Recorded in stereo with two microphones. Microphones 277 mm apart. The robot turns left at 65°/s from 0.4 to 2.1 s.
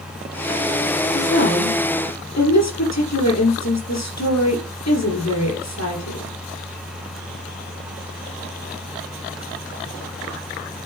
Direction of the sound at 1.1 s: 145° left.